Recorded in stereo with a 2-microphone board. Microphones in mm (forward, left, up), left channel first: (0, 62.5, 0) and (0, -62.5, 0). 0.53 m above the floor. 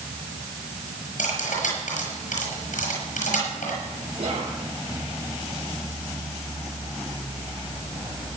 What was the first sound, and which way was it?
Cutlery clinking, 80° left.